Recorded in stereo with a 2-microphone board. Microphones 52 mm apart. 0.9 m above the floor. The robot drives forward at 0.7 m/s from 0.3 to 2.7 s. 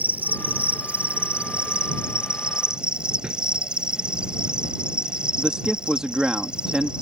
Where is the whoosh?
15° right (ahead or behind).